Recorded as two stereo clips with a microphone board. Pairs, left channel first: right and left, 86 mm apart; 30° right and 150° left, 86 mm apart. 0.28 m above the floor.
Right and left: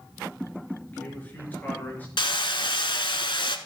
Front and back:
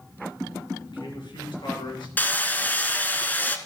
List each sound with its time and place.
0.9 s a man speaking: 20° right, 3 m
2.2 s hammering: 100° right, 0.8 m